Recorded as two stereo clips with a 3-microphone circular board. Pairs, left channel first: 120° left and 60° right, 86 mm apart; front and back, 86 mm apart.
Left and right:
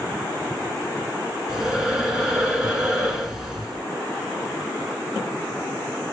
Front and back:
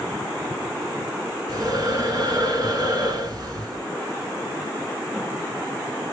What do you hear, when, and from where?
1.5 s breathing: 145° right, 0.9 m